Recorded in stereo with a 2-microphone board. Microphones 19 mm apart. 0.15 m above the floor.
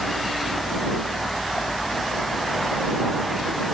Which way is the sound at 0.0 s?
45° left (ahead or behind).